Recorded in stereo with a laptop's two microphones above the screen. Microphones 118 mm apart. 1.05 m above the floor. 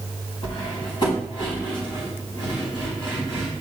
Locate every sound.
0.4 s cutlery clinking: 45° left (ahead or behind), 4 m